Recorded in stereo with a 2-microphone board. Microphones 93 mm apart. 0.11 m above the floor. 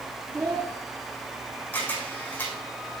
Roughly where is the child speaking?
Right.